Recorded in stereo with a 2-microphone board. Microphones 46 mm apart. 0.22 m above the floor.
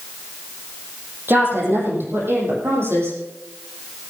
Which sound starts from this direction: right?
A woman speaking, at 1.3 s.